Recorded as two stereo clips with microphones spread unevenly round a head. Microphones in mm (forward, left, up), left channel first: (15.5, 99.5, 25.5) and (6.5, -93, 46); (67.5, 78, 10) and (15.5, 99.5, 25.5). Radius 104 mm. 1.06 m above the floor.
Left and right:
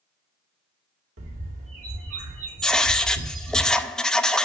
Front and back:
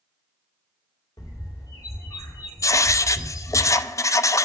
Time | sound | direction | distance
1.2 | a bird | 75° right | 2 m
2.6 | writing | straight ahead | 0.6 m